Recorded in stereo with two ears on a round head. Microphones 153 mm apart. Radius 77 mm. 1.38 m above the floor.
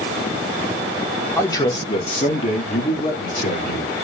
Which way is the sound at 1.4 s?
15° left (ahead or behind).